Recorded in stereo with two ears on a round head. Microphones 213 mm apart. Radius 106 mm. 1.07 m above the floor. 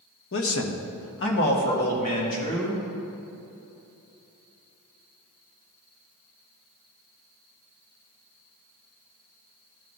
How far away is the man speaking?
About 1.0 m.